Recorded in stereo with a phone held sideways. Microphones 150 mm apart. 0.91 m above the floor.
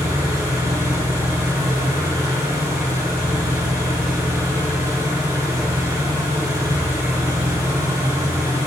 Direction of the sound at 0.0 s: 20° right (ahead or behind).